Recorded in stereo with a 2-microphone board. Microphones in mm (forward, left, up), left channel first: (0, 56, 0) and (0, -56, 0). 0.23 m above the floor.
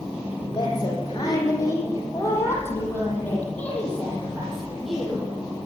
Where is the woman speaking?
40° left (ahead or behind), 8.5 m; by 5.2 s 5° right (ahead or behind), 7 m.